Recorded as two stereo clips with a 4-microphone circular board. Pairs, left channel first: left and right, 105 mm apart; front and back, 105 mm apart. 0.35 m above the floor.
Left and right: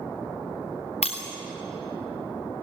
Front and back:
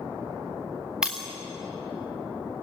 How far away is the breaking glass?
About 3.5 m.